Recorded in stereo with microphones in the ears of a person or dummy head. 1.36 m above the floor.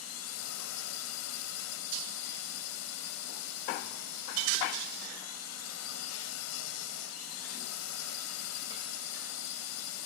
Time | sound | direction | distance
0.0 | a drone | 85° left | ?